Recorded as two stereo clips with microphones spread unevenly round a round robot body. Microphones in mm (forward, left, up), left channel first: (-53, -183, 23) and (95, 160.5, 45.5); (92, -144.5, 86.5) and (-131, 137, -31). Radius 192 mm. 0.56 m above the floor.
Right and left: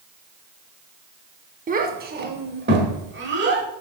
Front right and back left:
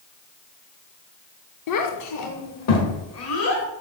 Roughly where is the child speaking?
Ahead.